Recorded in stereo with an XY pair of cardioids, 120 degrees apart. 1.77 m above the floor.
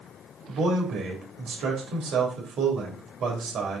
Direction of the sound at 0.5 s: 60° right.